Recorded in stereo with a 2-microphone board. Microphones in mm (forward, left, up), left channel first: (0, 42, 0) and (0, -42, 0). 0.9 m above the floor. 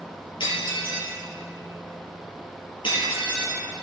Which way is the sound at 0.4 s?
75° left (ahead or behind).